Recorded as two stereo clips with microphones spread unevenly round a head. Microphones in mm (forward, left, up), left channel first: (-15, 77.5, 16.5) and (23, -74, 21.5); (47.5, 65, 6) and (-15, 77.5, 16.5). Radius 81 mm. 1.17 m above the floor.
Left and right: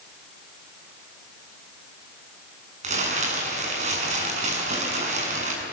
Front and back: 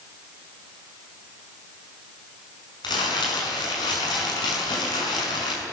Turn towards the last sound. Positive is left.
turn(degrees=-30)